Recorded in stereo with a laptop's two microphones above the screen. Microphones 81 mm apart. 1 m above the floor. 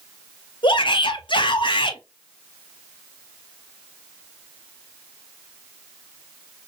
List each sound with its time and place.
0.6 s a shout: 75° left (ahead or behind), 0.7 m